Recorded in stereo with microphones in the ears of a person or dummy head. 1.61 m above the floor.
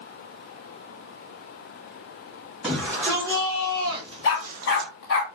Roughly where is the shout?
Centre.